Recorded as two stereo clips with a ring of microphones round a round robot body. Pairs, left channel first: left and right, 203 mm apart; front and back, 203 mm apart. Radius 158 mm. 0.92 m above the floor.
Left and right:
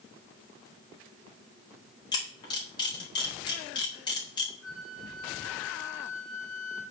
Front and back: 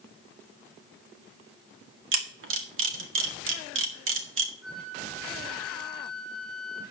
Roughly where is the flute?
Behind.